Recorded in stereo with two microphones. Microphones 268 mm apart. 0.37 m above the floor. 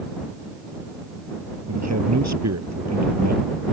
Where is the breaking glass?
No breaking glass in this recording.